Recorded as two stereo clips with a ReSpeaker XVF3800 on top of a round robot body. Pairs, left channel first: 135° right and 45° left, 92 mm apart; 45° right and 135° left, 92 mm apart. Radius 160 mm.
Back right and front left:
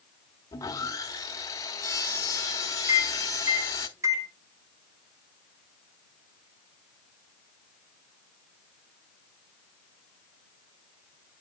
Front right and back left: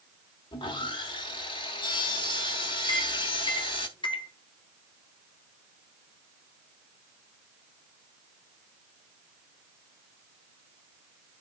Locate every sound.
0.5 s sawing: 80° right, 1.2 m
2.9 s a microwave: 15° right, 2.5 m